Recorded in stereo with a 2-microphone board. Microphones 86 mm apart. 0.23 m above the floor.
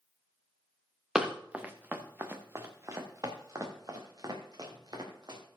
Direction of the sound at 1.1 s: 5° right (ahead or behind).